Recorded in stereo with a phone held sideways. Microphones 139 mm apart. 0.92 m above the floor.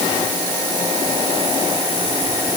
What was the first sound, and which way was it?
Only background noise.